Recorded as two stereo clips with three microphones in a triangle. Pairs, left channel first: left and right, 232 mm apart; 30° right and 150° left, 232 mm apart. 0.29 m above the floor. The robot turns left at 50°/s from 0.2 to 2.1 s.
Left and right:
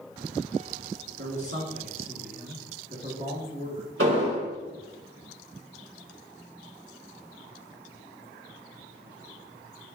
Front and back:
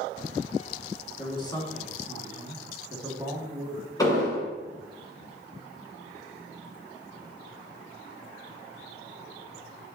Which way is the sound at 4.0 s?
105° right.